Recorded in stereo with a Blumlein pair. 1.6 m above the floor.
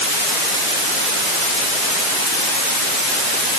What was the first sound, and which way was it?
Only background noise.